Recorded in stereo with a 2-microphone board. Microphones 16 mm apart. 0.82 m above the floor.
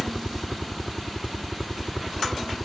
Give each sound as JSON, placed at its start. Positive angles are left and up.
{"t": 0.0, "sound": "a helicopter", "side_deg": 0}